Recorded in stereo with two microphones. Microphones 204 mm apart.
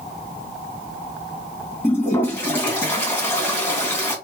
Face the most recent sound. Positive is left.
turn(degrees=15)  # may be behind; listen again after turning